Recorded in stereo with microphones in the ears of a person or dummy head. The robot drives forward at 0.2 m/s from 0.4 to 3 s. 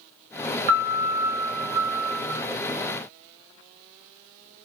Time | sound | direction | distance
0.7 | a piano | 40° right (ahead or behind) | 0.5 m